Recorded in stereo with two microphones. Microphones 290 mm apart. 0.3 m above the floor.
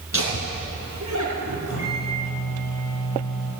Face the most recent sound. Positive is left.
turn(degrees=75)  # may be behind; listen again after turning